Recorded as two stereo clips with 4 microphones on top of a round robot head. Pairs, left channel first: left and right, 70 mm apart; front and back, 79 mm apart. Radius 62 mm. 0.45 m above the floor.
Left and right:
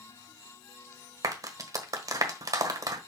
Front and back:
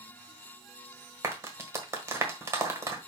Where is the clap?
125° right, 1.4 m.